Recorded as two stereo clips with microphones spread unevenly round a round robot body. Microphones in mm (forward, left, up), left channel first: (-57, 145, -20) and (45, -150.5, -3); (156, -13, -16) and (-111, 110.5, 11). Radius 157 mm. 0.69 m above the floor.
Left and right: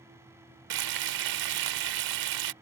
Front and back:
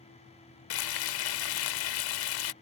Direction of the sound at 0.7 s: 45° right.